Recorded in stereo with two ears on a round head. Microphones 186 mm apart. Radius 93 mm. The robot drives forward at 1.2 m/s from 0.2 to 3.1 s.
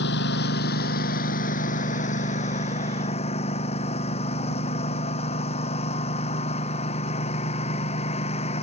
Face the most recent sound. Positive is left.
turn(degrees=30)  # may be behind; listen again after turning